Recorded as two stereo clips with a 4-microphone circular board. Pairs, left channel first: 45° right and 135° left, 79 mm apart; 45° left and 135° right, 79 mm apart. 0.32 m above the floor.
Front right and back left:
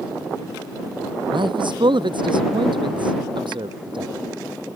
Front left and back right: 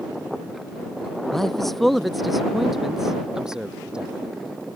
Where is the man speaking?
130° left; by 4.1 s 145° left.